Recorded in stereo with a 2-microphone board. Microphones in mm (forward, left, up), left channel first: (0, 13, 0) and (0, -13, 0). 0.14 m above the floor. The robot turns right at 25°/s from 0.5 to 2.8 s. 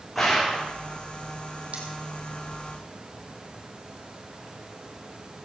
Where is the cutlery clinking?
55° right (ahead or behind), 3.5 m.